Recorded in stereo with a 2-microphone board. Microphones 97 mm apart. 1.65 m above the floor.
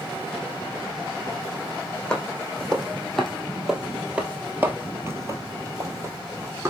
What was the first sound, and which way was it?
Footsteps, 10° left (ahead or behind).